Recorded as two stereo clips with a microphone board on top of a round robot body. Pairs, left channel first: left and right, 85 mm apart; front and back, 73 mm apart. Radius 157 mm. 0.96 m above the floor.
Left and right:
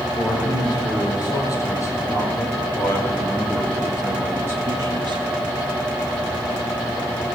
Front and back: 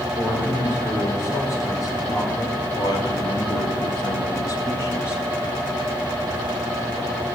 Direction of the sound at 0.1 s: 50° left.